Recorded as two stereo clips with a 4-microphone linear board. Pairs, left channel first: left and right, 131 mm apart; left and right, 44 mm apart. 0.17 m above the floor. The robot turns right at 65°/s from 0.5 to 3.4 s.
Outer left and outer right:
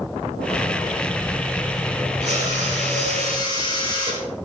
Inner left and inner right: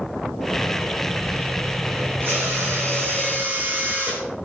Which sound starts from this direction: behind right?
A drill, at 2.2 s.